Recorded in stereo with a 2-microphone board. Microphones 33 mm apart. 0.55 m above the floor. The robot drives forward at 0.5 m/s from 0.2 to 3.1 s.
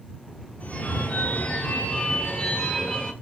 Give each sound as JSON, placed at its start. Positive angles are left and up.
{"t": 0.6, "sound": "a phone ringing", "side_deg": 50, "distance_m": 0.9}